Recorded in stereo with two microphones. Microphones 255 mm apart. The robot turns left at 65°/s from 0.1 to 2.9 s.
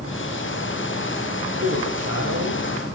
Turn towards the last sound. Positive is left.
turn(degrees=-135)